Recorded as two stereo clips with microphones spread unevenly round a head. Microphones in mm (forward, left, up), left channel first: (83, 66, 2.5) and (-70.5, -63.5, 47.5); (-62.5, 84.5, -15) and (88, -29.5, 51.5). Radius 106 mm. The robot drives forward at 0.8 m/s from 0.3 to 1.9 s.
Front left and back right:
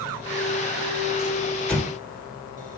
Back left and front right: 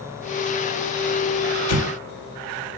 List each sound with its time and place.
1.7 s an explosion: 130° left, 1.5 m; by 1.9 s 135° left, 1.6 m